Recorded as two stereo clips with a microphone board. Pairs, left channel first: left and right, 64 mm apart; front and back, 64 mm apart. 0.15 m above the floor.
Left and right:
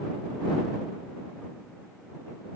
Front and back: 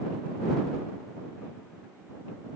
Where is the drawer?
No drawer in this recording.